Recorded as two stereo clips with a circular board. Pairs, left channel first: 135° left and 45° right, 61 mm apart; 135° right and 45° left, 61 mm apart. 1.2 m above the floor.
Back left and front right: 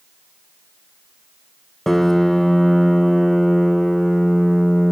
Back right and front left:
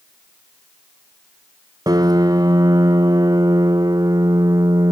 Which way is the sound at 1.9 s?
50° left.